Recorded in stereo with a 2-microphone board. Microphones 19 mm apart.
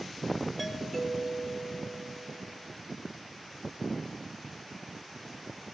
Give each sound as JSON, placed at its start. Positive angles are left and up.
{"t": 0.6, "sound": "a doorbell", "side_deg": 0, "distance_m": 6.0}